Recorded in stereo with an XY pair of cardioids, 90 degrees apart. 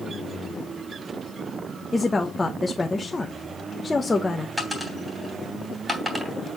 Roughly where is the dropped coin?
Ahead.